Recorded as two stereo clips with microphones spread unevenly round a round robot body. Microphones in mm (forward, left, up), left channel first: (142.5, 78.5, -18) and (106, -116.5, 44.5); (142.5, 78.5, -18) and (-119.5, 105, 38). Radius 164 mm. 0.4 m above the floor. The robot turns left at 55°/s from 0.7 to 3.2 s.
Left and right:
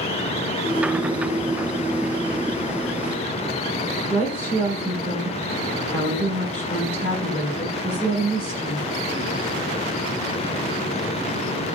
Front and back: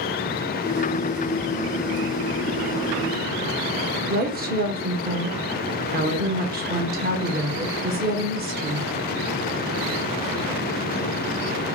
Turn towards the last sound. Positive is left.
turn(degrees=125)